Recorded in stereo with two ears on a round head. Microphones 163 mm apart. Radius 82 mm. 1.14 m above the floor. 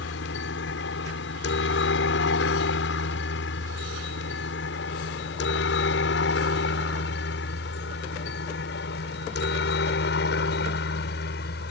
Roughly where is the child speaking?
I don't hear a child speaking.